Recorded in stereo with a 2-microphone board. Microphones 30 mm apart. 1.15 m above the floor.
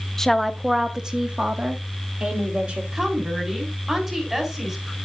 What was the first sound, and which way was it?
A woman speaking, 15° left (ahead or behind).